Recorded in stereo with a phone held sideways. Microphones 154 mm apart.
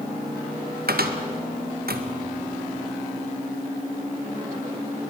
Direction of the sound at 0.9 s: 85° right.